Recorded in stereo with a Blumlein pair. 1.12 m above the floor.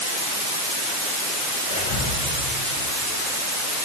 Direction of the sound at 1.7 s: 45° left.